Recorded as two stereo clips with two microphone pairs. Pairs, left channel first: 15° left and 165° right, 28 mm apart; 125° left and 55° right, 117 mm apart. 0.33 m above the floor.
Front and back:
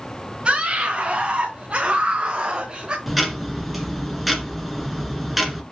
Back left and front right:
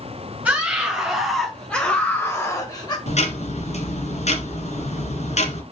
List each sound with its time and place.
0.5 s a scream: 130° right, 1.7 m; by 3.0 s 155° left, 1.4 m
3.1 s ticking: 105° left, 1.9 m